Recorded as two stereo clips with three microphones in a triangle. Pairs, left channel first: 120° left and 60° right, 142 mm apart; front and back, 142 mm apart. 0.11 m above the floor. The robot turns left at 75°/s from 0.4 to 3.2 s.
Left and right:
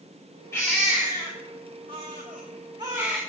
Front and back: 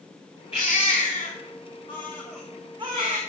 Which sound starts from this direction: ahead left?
A baby crying, at 0.5 s.